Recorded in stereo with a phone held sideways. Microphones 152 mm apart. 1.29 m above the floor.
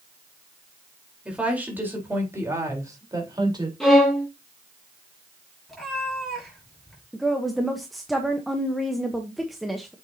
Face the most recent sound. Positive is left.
turn(degrees=0)  # may be behind; listen again after turning